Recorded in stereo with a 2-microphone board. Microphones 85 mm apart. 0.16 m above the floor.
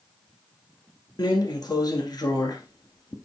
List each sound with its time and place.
1.2 s a drawer: 50° left (ahead or behind), 1.3 m